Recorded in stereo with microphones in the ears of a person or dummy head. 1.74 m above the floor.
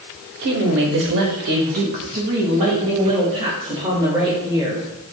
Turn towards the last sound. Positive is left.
turn(degrees=-25)  # may be behind; listen again after turning